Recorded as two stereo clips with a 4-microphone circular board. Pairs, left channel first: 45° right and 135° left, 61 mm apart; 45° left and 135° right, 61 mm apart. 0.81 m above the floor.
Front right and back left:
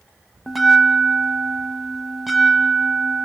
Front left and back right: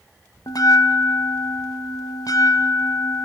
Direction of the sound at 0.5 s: 45° left.